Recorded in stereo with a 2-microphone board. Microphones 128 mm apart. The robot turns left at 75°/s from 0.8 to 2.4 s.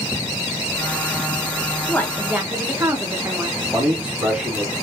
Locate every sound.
1.9 s a woman speaking: 20° left, 0.8 m; by 3.5 s 20° right, 0.8 m
3.6 s a man speaking: 15° right (ahead or behind), 2.5 m